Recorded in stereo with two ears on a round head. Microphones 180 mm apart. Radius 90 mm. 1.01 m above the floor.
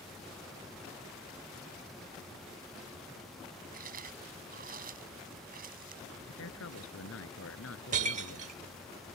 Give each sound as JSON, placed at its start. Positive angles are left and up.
{"t": 3.7, "sound": "chewing", "side_deg": -45}
{"t": 6.3, "sound": "a man speaking", "side_deg": 75}
{"t": 7.9, "sound": "breaking glass", "side_deg": -40}